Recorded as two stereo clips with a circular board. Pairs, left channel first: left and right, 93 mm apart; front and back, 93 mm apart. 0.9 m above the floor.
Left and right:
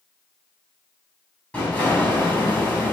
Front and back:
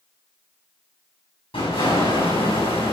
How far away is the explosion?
About 7.5 m.